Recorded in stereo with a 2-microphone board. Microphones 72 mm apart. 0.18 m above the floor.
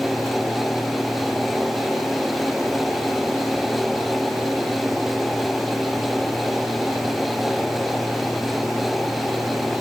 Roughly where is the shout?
I don't hear a shout.